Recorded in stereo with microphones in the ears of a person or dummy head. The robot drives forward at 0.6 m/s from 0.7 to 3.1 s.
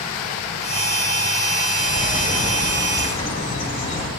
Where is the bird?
55° left (ahead or behind), 3 m; by 4.1 s 45° left (ahead or behind), 3.5 m.